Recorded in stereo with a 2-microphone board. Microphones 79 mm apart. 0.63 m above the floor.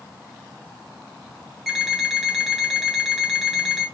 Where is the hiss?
I don't hear a hiss.